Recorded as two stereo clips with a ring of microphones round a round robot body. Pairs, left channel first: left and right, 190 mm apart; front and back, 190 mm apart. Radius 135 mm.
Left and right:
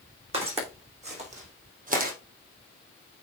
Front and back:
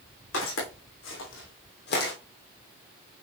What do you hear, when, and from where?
0.3 s footsteps: 30° right, 4.5 m; by 2.1 s 55° right, 2 m